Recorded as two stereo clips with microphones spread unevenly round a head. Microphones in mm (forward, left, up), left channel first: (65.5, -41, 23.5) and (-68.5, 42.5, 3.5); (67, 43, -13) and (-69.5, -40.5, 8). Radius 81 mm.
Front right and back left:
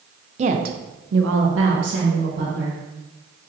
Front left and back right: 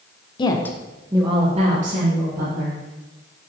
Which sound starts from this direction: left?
A woman speaking, at 0.4 s.